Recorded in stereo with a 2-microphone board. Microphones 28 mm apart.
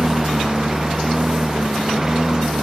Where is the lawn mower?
15° right (ahead or behind); by 2.6 s 20° right (ahead or behind).